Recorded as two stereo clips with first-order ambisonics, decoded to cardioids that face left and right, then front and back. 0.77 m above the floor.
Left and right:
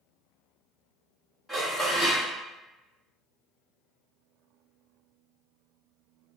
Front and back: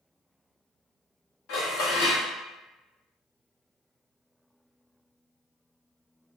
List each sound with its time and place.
1.5 s dishes clattering: straight ahead, 1.3 m